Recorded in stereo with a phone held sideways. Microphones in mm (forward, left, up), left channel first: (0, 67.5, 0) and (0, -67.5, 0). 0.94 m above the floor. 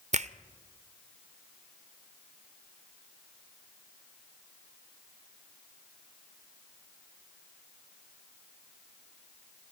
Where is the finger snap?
55° right (ahead or behind), 0.6 m.